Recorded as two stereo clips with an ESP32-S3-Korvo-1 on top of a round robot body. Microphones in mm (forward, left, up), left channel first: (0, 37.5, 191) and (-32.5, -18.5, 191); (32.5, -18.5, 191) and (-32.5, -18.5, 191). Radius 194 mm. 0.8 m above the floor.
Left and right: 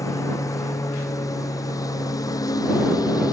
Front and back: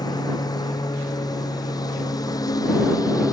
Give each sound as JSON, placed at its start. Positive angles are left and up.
{"t": 0.0, "sound": "a lawn mower", "azimuth_deg": 20}